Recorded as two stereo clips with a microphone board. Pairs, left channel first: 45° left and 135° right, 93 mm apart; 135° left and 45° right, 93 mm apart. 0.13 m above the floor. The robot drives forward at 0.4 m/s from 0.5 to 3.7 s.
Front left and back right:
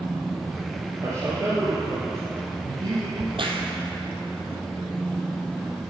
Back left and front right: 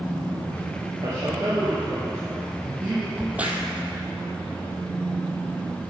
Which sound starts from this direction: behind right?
A crack, at 3.2 s.